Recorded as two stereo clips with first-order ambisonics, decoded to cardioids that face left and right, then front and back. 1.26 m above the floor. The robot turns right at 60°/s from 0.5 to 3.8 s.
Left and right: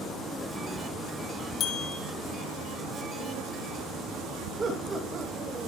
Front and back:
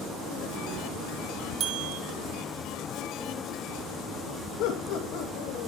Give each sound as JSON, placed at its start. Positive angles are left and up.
{"t": 1.6, "sound": "a bell", "azimuth_deg": 130, "distance_m": 1.9}
{"t": 4.6, "sound": "laughter", "azimuth_deg": -20, "distance_m": 2.0}